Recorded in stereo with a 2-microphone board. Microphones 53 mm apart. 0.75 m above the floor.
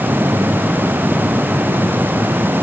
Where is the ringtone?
No ringtone in this recording.